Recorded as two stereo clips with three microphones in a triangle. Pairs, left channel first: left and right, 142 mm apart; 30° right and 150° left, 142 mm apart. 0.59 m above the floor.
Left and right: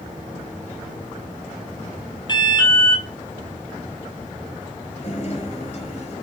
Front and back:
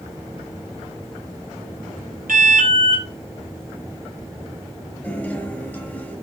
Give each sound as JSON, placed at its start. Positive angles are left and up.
{"t": 2.3, "sound": "an alarm", "azimuth_deg": 145, "distance_m": 3.5}
{"t": 5.0, "sound": "a guitar", "azimuth_deg": 50, "distance_m": 6.5}